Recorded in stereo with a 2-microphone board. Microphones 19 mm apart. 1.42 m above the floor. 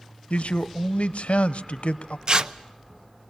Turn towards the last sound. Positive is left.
turn(degrees=-45)  # may be behind; listen again after turning